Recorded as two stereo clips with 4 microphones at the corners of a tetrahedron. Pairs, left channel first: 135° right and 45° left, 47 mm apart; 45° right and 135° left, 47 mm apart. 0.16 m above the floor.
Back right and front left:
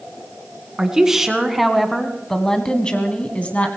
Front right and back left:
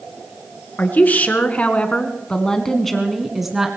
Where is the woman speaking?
25° right, 2.5 m; by 3.7 s 155° right, 1.9 m.